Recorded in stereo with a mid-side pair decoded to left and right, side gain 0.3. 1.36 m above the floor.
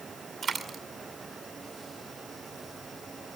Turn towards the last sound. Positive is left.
turn(degrees=-60)